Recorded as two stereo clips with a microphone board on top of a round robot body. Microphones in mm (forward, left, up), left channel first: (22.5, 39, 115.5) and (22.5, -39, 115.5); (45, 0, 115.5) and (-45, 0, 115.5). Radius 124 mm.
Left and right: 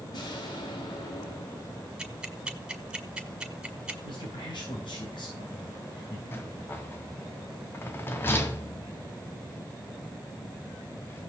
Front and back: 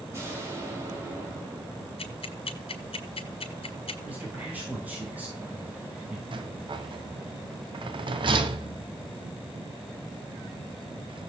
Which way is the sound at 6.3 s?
150° left.